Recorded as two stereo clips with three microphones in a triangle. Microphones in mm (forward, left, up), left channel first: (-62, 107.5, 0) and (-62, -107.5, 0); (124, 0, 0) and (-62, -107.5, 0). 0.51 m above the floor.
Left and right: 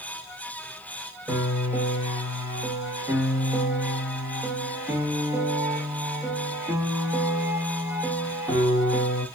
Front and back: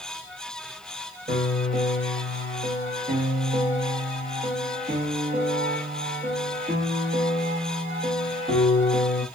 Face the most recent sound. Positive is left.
turn(degrees=-165)